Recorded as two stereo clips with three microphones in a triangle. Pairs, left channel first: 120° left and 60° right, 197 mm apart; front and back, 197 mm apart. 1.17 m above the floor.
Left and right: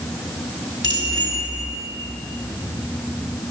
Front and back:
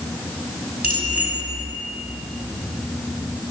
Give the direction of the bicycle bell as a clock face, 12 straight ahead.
7 o'clock.